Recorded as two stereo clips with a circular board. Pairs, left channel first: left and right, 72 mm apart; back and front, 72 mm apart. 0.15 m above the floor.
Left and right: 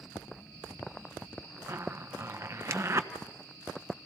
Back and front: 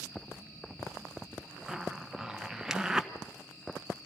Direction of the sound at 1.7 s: 80° right.